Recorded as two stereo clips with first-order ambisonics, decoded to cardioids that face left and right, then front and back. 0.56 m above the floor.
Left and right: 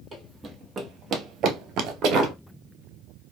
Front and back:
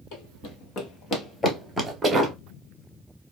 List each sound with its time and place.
0.1 s running footsteps: 15° right, 1.2 m; by 2.3 s 115° right, 0.9 m